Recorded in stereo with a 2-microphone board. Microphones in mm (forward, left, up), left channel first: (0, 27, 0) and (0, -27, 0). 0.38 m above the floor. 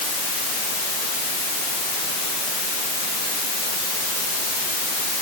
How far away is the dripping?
I don't hear dripping.